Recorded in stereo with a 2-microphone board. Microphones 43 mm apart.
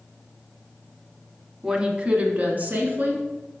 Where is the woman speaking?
15° right (ahead or behind), 1.0 m; by 3.6 s 45° right (ahead or behind), 2.5 m.